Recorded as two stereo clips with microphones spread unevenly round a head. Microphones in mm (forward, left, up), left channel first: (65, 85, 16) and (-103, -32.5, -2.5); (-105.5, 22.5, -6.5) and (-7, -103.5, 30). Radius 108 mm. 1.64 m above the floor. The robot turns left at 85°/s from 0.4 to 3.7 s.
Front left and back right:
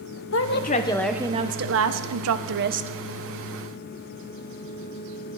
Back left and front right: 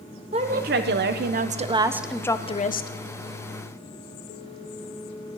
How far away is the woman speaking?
About 0.9 m.